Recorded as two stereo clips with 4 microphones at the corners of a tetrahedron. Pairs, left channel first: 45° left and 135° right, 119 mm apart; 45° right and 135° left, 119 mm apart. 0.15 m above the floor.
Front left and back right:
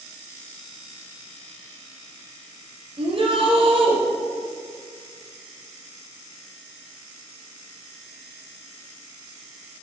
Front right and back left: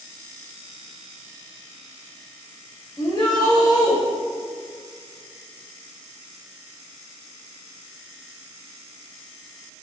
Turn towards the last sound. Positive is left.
turn(degrees=-100)